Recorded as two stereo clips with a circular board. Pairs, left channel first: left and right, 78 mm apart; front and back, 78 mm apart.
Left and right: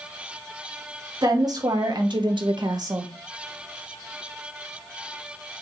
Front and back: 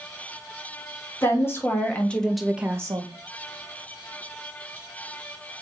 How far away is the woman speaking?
About 2.0 m.